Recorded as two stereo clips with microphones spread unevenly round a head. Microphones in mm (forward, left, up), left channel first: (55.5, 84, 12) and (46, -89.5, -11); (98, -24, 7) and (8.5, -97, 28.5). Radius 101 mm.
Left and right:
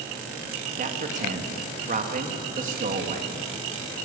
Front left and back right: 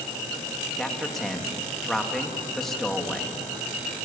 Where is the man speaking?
50° right, 2.5 m.